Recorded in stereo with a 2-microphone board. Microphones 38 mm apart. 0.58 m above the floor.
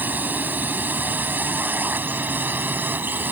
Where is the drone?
50° right (ahead or behind); by 3.3 s 55° right (ahead or behind).